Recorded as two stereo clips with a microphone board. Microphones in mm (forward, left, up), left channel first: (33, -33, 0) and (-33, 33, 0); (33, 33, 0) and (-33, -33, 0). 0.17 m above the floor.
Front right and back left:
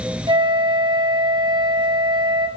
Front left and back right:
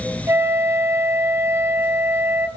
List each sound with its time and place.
0.3 s a flute: 165° left, 1.4 m